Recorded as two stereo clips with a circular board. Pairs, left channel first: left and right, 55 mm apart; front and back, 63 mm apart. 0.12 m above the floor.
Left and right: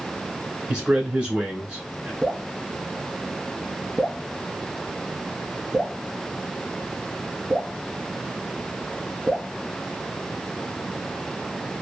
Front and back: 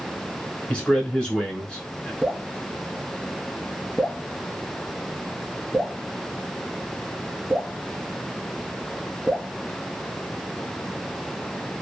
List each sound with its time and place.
0.7 s a man speaking: 45° right, 1.1 m
2.2 s dripping: straight ahead, 1.7 m